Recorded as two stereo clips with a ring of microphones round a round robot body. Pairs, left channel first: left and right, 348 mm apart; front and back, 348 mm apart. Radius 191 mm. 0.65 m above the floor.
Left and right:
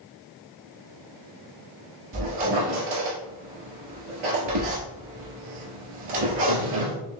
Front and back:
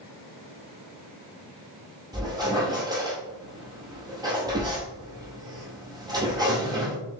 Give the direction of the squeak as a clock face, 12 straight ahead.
3 o'clock.